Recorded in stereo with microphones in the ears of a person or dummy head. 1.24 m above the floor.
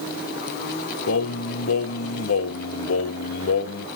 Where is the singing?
70° left (ahead or behind), 0.6 m.